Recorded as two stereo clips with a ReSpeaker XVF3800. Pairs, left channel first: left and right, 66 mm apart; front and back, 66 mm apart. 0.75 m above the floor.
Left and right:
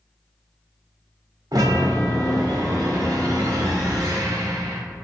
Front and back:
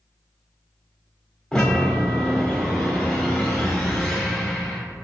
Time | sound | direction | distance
1.5 | a chime | 80° right | 1.3 m